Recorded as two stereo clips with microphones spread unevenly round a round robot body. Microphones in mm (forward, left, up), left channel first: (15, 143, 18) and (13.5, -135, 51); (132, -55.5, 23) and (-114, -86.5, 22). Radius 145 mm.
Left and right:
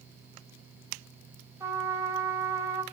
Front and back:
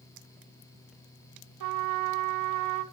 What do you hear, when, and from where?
1.6 s a trumpet: 170° right, 0.6 m